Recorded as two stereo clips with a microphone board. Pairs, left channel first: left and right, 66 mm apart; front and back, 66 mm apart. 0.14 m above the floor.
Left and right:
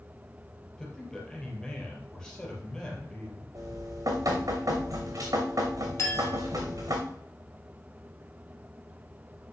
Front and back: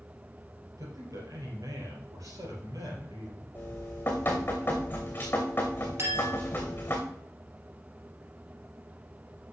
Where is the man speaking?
165° left, 4 m.